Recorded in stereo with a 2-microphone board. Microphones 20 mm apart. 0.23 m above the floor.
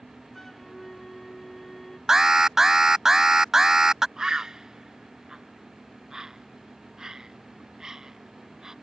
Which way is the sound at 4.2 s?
40° right (ahead or behind).